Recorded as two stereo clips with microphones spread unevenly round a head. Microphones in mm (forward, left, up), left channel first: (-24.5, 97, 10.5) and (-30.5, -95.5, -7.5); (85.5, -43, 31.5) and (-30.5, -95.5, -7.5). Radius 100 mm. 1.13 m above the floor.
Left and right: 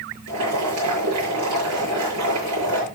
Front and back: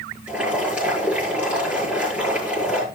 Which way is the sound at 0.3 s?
75° right.